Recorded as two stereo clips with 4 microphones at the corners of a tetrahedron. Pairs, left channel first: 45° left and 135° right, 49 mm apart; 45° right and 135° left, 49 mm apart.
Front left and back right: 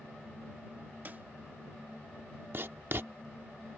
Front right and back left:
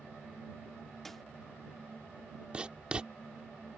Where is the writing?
165° right.